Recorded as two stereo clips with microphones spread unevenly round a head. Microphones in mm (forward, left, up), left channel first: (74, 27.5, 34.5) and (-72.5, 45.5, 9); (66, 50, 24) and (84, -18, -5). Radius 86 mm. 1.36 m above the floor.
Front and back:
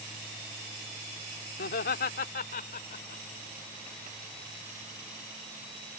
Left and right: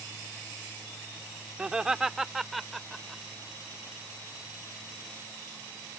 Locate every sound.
1.6 s laughter: 5° left; by 3.2 s 25° left